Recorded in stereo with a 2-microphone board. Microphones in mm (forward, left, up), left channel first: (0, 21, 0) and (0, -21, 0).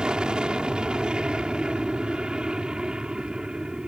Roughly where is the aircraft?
Right.